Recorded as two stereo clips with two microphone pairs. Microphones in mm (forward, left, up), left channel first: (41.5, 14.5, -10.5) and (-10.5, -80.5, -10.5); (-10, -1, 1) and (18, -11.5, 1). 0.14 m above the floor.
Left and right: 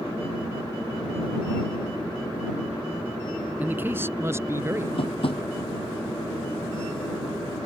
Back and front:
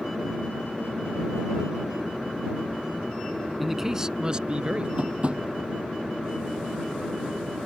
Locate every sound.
3.6 s a man speaking: 90° right; by 4.9 s 60° right
5.0 s tapping: 30° left